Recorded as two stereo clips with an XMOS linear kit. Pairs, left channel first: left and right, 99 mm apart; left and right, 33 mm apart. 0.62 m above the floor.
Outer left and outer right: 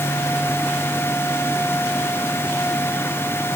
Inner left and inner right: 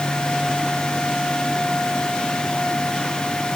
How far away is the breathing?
I don't hear breathing.